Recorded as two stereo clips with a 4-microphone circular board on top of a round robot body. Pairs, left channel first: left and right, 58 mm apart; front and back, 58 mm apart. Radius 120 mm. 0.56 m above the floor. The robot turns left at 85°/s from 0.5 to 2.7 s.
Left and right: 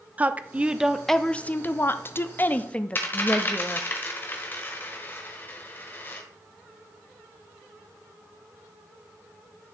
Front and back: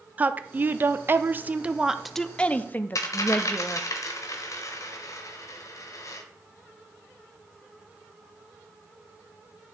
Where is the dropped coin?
30° left, 0.7 m.